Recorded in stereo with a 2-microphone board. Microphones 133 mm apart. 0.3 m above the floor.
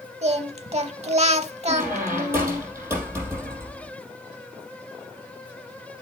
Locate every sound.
0.2 s singing: 50° right (ahead or behind), 0.7 m
1.7 s a squeak: 20° right (ahead or behind), 4.5 m